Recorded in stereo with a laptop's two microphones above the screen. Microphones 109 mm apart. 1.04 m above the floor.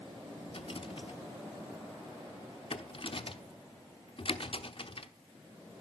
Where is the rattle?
55° left (ahead or behind), 0.9 m.